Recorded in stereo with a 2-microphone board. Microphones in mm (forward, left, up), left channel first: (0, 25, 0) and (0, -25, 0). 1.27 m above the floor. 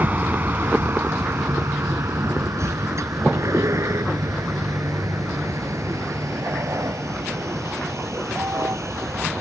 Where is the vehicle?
35° right (ahead or behind); by 9.4 s 75° right (ahead or behind).